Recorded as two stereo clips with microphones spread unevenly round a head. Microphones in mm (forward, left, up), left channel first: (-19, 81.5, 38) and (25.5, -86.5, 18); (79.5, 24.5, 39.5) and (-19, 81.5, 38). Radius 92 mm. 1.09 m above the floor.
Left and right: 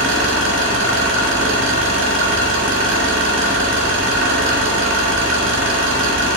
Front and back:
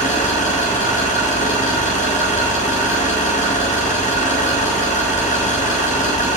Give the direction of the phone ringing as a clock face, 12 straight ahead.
I don't hear a phone ringing.